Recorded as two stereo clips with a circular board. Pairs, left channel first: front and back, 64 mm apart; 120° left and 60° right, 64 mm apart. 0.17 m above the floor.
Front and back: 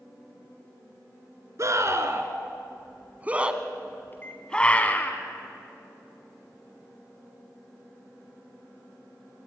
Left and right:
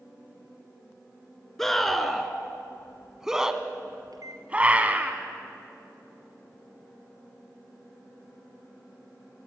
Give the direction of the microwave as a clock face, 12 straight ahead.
2 o'clock.